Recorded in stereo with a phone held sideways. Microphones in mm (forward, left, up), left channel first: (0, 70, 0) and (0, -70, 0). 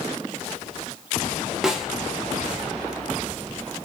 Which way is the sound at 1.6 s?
5° right (ahead or behind).